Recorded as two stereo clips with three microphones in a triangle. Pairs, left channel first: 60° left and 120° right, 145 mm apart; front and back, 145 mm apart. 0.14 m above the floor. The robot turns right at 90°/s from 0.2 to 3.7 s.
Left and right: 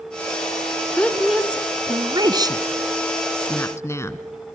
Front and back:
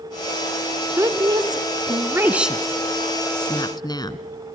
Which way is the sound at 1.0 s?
125° left.